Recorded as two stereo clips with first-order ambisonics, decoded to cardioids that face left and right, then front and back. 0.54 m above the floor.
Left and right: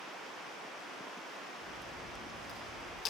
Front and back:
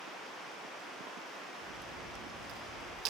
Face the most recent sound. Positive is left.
turn(degrees=145)